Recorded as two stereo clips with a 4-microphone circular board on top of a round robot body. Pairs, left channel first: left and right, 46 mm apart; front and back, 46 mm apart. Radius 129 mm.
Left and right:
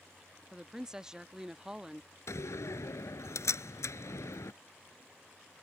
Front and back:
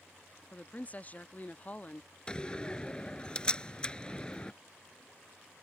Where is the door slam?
70° left.